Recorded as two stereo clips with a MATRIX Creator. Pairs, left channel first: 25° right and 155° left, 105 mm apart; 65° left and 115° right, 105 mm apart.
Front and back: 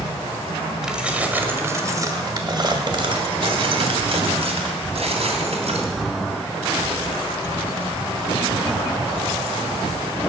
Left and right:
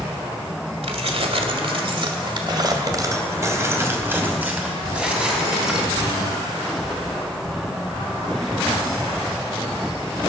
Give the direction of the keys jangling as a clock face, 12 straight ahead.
4 o'clock.